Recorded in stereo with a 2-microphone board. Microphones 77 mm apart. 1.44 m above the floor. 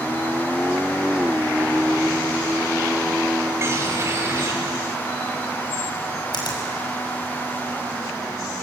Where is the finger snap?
70° left (ahead or behind), 6 m.